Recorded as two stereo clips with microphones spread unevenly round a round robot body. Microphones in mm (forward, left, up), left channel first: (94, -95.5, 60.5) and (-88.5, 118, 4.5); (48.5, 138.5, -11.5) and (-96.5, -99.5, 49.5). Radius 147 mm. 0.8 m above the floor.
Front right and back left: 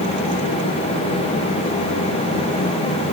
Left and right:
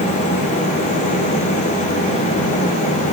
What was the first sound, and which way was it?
Only background noise.